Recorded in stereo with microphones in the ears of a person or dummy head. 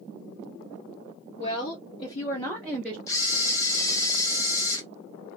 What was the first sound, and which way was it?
A woman speaking, 40° left (ahead or behind).